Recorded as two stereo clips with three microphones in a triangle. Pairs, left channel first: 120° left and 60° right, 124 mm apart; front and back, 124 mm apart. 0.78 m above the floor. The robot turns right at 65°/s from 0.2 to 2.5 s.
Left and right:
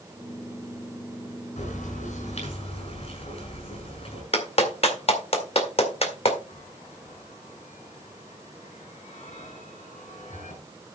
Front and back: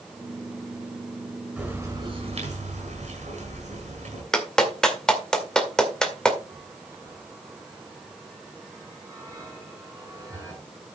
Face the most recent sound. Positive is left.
turn(degrees=120)